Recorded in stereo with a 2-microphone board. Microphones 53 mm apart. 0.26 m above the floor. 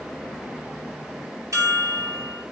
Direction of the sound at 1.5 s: 70° right (ahead or behind).